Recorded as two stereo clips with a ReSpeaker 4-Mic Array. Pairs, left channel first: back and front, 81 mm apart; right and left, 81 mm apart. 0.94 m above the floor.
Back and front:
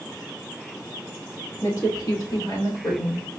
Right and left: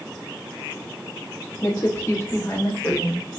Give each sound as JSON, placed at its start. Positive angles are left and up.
{"t": 1.6, "sound": "a woman speaking", "azimuth_deg": -135, "distance_m": 2.0}